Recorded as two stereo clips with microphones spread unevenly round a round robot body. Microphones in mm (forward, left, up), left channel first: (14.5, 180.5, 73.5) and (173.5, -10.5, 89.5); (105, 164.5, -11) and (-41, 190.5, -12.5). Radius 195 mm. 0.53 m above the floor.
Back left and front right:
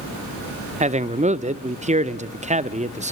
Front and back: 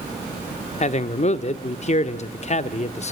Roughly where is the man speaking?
Ahead.